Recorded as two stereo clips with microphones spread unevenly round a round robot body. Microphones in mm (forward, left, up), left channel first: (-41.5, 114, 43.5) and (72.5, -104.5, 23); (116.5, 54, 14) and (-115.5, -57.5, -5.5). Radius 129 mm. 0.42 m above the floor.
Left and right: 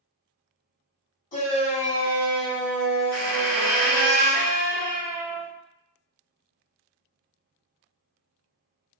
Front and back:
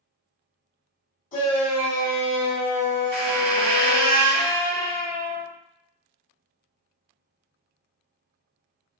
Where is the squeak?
155° right, 1.0 m.